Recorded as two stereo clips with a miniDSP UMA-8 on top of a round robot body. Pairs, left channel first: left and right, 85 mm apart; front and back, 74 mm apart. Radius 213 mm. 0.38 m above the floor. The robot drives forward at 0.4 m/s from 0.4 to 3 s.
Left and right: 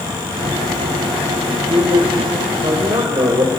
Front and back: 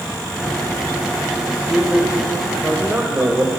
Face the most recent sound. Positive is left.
turn(degrees=-115)